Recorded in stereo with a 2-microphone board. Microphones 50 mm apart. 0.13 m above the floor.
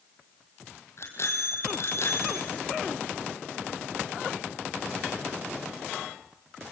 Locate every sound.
1.0 s a bicycle bell: 60° left (ahead or behind), 3 m